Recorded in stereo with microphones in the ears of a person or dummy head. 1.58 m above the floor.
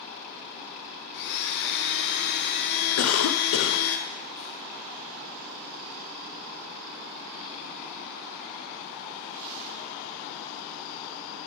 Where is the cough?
85° left, 0.7 m.